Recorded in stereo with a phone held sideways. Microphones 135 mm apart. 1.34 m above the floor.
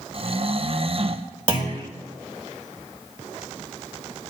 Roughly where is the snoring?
Right.